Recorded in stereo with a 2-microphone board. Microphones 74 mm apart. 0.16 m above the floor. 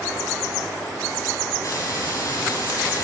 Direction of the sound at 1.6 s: 50° left (ahead or behind).